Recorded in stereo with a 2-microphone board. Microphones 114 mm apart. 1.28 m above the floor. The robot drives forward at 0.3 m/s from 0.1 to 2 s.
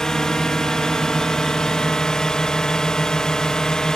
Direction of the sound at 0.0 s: 5° left (ahead or behind).